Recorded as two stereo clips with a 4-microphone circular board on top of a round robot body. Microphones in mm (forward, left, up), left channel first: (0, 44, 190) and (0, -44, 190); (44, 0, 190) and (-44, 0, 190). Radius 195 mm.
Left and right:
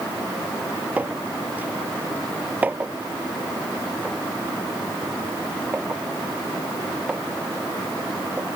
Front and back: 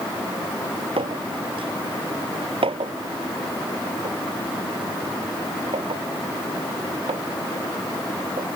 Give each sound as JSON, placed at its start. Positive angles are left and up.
{"t": 1.0, "sound": "a clink", "azimuth_deg": -165}